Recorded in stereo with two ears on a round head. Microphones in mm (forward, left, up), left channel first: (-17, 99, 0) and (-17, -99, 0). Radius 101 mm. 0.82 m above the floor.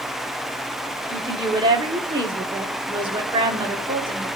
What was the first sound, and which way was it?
A woman speaking, 20° right (ahead or behind).